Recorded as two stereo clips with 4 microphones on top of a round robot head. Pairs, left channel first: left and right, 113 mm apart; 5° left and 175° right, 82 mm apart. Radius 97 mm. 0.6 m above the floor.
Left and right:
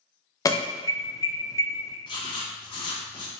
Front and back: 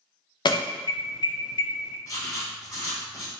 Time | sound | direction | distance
0.5 | an alarm | 30° left | 0.6 m
2.0 | writing | 50° left | 0.8 m